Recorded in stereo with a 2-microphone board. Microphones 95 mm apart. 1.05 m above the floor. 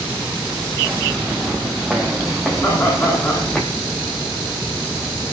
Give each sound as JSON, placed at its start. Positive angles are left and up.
{"t": 0.8, "sound": "footsteps", "side_deg": -5, "distance_m": 4.5}
{"t": 2.6, "sound": "laughter", "side_deg": 30, "distance_m": 9.5}